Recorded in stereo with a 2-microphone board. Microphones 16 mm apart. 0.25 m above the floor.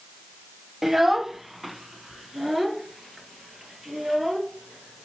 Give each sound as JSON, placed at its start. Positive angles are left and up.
{"t": 0.8, "sound": "a child speaking", "side_deg": -20, "distance_m": 0.6}